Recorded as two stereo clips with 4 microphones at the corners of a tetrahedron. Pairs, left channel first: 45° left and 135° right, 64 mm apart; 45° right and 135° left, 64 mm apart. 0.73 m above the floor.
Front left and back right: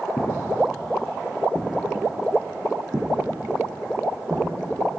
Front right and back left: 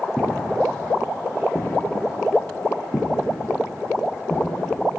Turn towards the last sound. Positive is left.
turn(degrees=-100)